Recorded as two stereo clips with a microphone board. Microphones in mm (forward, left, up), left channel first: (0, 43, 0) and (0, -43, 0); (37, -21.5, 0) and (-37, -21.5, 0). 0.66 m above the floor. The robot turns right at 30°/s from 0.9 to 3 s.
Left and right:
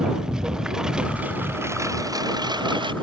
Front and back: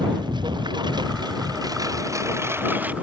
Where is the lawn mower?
170° right; by 3.0 s 110° right.